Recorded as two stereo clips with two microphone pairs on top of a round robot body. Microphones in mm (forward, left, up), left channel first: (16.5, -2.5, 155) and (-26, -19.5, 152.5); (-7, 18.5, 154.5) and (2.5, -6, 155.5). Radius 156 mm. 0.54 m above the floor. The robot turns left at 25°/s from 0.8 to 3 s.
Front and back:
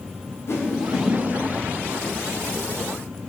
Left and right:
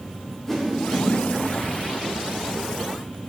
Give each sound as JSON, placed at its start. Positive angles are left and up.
{"t": 0.5, "sound": "a whoosh", "azimuth_deg": 30, "distance_m": 1.9}